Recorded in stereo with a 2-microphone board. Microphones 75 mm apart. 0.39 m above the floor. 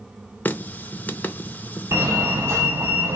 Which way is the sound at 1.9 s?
35° right (ahead or behind).